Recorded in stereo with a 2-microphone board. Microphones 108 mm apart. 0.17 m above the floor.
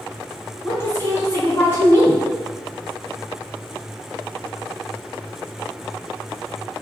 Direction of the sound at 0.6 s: 25° left (ahead or behind).